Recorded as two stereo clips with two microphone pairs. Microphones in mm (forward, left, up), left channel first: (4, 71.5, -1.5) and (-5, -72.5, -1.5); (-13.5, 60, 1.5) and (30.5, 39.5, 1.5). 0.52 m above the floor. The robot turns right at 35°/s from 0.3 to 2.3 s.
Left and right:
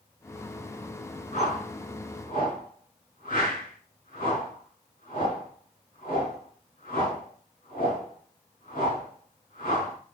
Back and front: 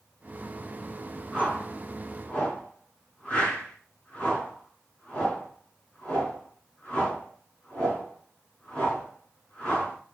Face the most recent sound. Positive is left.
turn(degrees=85)